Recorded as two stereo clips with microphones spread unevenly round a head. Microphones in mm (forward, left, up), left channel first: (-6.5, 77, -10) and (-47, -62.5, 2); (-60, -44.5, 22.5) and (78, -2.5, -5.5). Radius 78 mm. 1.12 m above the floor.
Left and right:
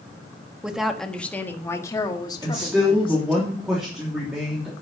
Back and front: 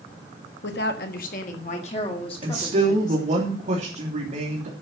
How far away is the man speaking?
About 3 m.